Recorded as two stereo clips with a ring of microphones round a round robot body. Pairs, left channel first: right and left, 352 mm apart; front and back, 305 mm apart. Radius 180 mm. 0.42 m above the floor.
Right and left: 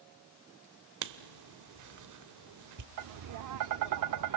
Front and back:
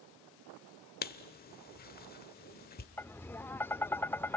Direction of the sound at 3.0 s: 80° left.